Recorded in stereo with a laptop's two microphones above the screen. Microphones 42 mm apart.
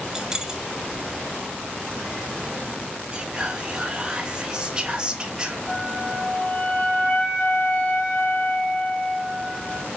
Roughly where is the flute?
Left.